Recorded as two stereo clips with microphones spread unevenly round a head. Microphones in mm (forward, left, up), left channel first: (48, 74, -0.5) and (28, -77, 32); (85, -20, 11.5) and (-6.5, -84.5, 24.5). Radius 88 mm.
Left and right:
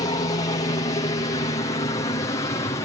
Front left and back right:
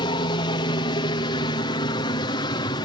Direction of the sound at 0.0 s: 45° left.